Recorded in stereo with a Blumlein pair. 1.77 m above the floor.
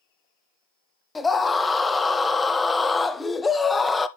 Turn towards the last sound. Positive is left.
turn(degrees=10)